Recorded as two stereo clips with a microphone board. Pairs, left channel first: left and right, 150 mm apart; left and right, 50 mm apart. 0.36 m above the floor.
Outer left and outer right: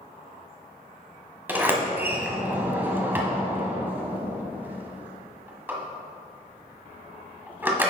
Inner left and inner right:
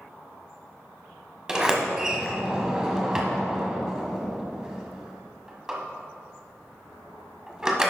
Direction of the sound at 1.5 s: 10° right (ahead or behind).